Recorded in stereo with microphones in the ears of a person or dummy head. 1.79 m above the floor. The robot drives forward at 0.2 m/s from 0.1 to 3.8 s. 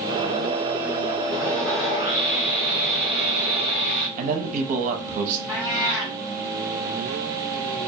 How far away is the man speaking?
About 0.5 m.